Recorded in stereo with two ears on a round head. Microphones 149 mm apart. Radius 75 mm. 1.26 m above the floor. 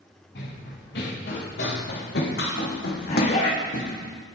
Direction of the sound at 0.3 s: 65° left (ahead or behind).